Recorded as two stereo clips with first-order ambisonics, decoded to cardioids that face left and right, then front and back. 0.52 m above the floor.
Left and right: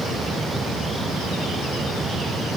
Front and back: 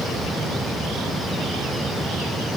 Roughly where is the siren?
No siren in this recording.